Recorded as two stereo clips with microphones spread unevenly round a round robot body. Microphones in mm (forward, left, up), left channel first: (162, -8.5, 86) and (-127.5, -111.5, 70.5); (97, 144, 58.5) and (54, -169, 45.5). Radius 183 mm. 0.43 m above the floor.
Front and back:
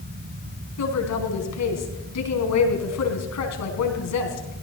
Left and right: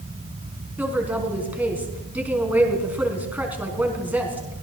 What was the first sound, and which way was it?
A woman speaking, 15° right.